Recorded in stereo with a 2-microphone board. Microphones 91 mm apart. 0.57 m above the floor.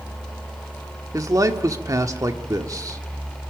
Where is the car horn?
No car horn in this recording.